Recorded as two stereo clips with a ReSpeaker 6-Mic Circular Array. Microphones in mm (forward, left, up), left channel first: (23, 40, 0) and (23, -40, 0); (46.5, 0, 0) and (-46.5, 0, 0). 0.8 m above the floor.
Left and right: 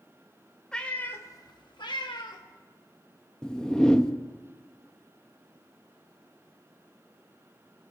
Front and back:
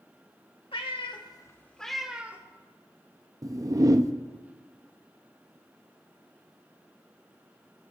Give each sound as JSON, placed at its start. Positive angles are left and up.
{"t": 0.7, "sound": "a cat meowing", "azimuth_deg": 10, "distance_m": 1.1}
{"t": 3.4, "sound": "a whoosh", "azimuth_deg": 165, "distance_m": 0.6}